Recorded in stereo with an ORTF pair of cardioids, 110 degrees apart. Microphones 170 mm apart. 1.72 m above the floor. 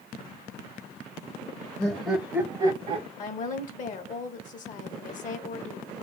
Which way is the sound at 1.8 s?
25° left.